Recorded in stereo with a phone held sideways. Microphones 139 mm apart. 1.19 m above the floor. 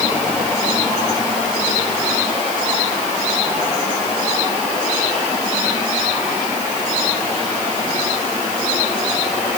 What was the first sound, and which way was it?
Only background noise.